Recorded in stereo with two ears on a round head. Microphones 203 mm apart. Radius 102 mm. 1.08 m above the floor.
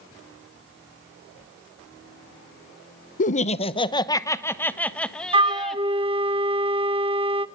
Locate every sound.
3.2 s laughter: 35° left (ahead or behind), 0.6 m; by 5.8 s centre (ahead or behind), 1.6 m
5.3 s a flute: 25° right (ahead or behind), 0.8 m